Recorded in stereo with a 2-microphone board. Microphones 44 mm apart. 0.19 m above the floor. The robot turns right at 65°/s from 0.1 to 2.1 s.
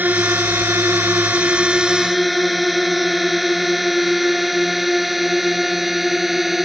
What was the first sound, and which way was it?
A drone, 40° right (ahead or behind).